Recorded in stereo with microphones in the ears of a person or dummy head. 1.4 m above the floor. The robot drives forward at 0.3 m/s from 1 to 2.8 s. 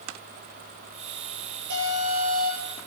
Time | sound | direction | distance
1.7 | an alarm | 70° right (ahead or behind) | 8 m